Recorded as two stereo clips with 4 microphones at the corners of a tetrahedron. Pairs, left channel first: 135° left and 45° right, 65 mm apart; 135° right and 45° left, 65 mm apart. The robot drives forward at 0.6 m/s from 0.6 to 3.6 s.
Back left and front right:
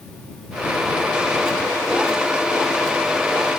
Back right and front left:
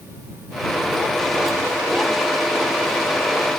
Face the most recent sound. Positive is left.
No sound to turn to.